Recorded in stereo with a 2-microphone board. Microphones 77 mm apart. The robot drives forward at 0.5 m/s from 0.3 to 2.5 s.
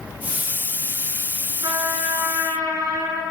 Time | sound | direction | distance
1.6 | a trumpet | 80° right | 0.7 m